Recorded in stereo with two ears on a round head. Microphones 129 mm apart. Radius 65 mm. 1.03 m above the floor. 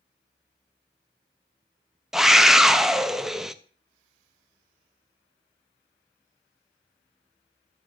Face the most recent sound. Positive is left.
turn(degrees=-5)  # may be behind; listen again after turning